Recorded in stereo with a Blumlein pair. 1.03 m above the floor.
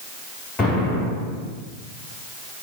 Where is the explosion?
15° left, 1.8 m.